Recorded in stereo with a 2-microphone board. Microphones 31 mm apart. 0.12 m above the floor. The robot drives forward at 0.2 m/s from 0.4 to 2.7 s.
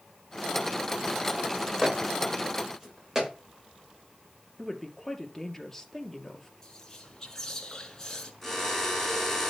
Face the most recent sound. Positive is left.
turn(degrees=10)  # may be behind; listen again after turning